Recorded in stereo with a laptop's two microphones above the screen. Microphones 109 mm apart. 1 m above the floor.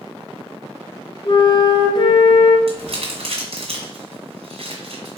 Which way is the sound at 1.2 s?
45° left (ahead or behind).